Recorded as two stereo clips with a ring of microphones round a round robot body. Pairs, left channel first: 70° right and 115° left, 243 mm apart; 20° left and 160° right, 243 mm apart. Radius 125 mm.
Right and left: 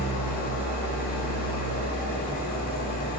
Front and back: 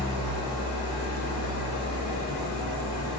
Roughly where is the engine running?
Ahead.